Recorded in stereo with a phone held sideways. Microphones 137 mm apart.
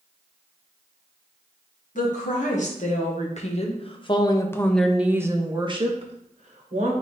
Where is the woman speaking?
70° left (ahead or behind), 1.8 m; by 6.9 s 60° right (ahead or behind), 1.4 m.